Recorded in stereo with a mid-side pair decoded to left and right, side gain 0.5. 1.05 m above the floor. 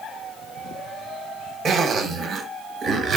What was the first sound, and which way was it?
A zipper, 55° right.